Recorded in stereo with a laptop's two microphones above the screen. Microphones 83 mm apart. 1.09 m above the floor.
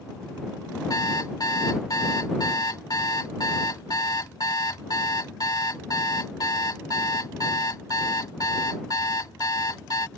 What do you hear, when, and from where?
0.9 s an alarm clock: 50° left (ahead or behind)